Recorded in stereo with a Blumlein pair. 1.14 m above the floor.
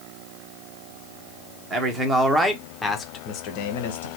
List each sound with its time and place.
1.7 s a man speaking: 20° right, 1.1 m; by 4.1 s 60° left, 0.9 m